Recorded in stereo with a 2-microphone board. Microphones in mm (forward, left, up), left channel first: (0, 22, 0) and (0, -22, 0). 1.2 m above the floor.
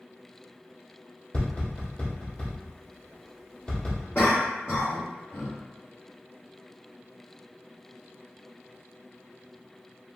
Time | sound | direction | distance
1.3 | tapping | 30° left (ahead or behind) | 1.6 m
4.2 | a cough | 35° left (ahead or behind) | 1.2 m